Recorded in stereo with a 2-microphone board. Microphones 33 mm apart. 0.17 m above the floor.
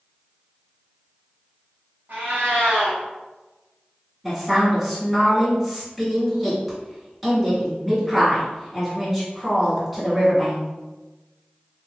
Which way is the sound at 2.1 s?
60° right (ahead or behind).